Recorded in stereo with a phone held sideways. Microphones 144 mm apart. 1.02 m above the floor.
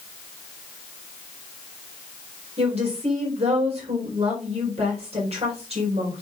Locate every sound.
2.6 s a woman speaking: 45° right (ahead or behind), 4 m